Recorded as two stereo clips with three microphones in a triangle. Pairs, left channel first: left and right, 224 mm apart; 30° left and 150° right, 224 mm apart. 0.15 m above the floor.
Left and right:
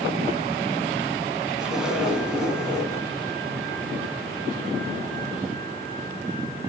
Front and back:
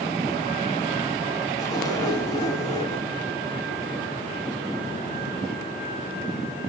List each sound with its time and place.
1.6 s a zipper: 10° right, 1.6 m